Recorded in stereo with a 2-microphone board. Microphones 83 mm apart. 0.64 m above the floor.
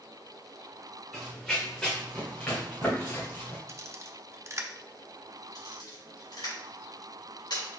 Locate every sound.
1.1 s running footsteps: centre (ahead or behind), 2 m; by 3.6 s 30° left (ahead or behind), 3.5 m
3.7 s a camera shutter: 35° right (ahead or behind), 0.5 m
5.5 s a camera shutter: 65° left (ahead or behind), 2.5 m